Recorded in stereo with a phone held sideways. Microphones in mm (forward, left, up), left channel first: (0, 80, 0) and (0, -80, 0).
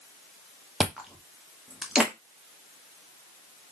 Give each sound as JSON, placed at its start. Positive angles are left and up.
{"t": 0.8, "sound": "chewing", "side_deg": -5, "distance_m": 0.7}